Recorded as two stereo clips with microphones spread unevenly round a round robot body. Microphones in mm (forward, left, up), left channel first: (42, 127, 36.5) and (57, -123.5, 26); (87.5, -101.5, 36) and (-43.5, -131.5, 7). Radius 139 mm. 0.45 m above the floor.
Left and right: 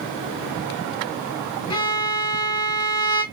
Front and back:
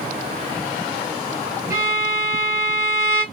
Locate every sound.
1.7 s a violin: 165° left, 0.9 m